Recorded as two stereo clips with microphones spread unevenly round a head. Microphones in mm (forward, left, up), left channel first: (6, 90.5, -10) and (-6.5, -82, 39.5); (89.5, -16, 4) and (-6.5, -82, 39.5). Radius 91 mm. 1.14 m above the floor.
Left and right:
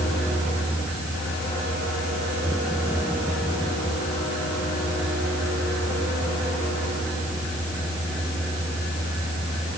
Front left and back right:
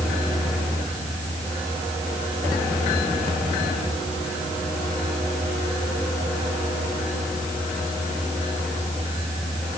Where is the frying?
I don't hear frying.